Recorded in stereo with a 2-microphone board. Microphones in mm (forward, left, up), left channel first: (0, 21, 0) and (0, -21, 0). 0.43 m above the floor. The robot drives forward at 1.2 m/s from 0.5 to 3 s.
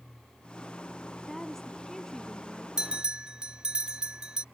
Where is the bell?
20° right (ahead or behind).